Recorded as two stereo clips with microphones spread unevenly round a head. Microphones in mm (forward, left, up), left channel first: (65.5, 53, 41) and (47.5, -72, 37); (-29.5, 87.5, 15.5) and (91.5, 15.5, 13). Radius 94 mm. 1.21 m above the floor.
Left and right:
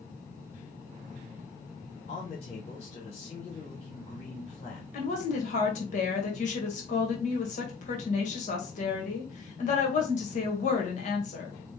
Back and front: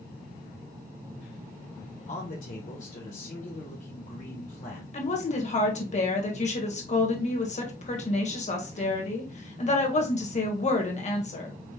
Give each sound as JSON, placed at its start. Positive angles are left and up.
{"t": 2.1, "sound": "a man speaking", "azimuth_deg": 125, "distance_m": 1.2}
{"t": 4.9, "sound": "a woman speaking", "azimuth_deg": 115, "distance_m": 1.7}